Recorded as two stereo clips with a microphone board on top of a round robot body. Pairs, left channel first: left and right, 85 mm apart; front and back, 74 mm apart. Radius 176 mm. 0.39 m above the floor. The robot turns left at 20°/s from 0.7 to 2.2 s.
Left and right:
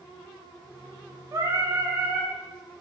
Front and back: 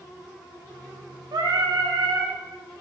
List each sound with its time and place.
1.3 s singing: 145° right, 0.5 m; by 2.4 s 165° right, 0.5 m